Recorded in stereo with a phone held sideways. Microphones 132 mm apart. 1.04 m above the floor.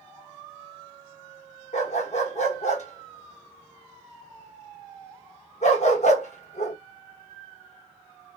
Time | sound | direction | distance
1.7 | a dog barking | 60° left (ahead or behind) | 0.9 m